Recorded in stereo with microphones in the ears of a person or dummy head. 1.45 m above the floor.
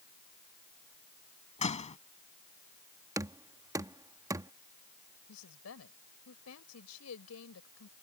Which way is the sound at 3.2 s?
15° right (ahead or behind).